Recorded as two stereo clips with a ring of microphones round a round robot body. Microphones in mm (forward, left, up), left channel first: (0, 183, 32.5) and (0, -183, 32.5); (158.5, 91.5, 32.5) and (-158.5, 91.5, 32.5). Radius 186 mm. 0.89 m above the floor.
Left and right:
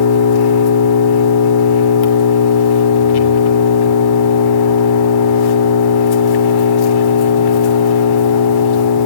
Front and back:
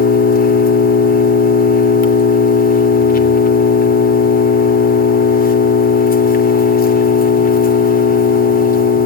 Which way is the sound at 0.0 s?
65° left.